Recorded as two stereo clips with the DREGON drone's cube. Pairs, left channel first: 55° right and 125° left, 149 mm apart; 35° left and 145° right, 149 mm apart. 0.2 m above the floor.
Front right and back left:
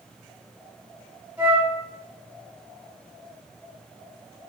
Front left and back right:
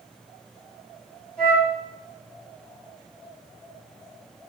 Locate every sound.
1.4 s a flute: 100° left, 1.6 m